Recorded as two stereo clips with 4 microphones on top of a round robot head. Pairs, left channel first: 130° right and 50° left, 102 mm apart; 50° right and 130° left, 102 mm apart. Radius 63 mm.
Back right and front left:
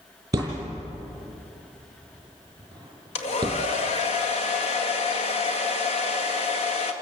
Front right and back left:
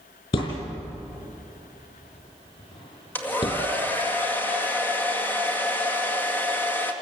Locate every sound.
0.3 s a thud: 10° right, 5 m
3.1 s a hair dryer: 120° right, 2 m